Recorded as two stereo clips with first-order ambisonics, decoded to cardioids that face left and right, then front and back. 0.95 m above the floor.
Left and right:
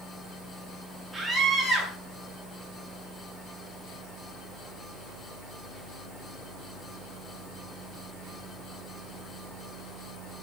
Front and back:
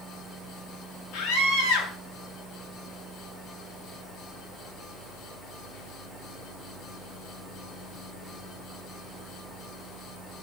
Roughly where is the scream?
Ahead.